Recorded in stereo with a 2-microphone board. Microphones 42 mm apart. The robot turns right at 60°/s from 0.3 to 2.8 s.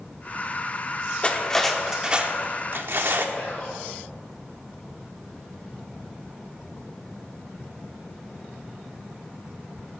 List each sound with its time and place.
1.2 s cutlery clinking: 150° left, 1.1 m; by 3.2 s 115° right, 1.1 m
3.4 s whispering: 35° left (ahead or behind), 1.6 m